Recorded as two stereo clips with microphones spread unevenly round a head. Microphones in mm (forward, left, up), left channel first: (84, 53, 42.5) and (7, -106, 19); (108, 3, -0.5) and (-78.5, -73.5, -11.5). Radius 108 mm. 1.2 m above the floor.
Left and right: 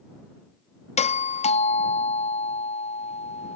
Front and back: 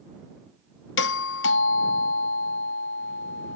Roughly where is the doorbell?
Ahead.